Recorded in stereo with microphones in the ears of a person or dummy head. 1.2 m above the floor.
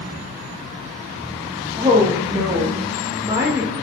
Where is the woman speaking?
20° right (ahead or behind), 0.6 m.